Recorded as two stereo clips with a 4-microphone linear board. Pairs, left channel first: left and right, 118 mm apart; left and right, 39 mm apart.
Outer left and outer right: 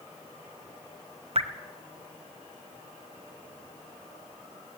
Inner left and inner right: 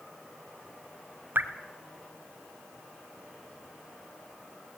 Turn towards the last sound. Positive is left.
turn(degrees=-55)  # may be behind; listen again after turning